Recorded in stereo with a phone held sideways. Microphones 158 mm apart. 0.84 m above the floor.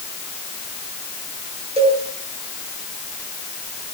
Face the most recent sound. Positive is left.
turn(degrees=-40)  # may be behind; listen again after turning